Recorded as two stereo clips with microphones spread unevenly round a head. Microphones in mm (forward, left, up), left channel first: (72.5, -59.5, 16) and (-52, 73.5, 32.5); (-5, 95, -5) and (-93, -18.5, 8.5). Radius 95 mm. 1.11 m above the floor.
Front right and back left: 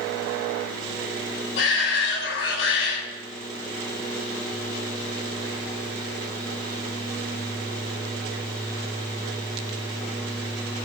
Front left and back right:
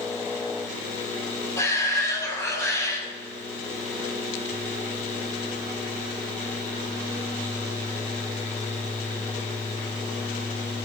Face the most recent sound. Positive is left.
turn(degrees=-20)